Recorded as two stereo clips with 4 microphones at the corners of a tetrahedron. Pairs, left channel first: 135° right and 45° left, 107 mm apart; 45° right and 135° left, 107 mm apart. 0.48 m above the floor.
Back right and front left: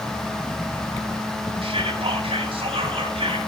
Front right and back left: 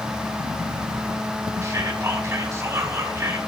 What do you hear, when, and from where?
1.6 s whispering: 70° left, 3.5 m